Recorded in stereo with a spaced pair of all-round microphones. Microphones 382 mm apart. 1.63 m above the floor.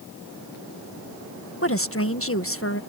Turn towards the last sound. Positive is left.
turn(degrees=35)  # may be behind; listen again after turning